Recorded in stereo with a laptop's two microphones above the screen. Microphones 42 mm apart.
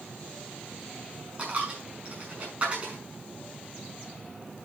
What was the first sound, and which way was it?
A dropped coin, 35° right (ahead or behind).